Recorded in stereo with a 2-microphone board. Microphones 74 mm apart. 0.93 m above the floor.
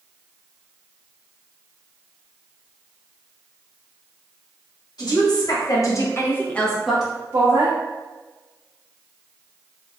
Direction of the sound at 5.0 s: 60° left (ahead or behind).